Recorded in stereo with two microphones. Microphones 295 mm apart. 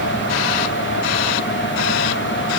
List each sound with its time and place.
Only background noise.